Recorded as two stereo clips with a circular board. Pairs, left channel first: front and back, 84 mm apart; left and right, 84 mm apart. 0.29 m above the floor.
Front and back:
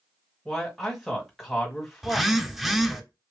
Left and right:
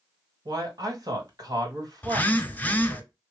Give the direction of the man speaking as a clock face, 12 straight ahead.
3 o'clock.